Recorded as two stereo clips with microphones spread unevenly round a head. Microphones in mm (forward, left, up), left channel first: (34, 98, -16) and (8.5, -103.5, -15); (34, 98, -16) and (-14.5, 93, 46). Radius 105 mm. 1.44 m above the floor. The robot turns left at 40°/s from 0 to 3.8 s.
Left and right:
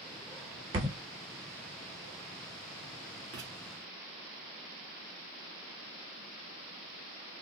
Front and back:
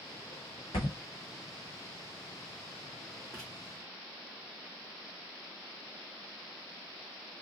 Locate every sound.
0.7 s a thud: 80° right, 1.2 m; by 1.0 s 90° right, 1.2 m
3.3 s writing: 65° right, 1.8 m; by 3.5 s 70° right, 1.8 m